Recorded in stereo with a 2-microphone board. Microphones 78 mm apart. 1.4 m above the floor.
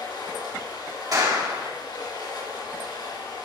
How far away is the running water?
About 5.5 m.